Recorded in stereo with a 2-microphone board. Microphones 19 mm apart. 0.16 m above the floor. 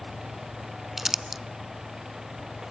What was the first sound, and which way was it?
Crumpling, 15° right (ahead or behind).